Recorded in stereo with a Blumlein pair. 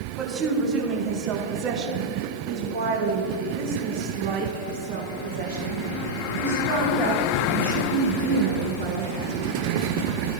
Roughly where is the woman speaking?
Ahead right.